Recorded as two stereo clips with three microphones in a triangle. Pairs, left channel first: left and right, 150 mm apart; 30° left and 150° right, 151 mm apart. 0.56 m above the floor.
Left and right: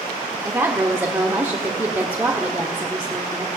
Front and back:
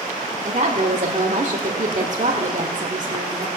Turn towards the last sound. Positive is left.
turn(degrees=-160)